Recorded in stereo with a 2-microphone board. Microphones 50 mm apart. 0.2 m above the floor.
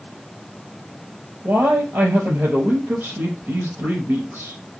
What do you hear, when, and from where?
1.4 s a man speaking: 65° right (ahead or behind), 3.5 m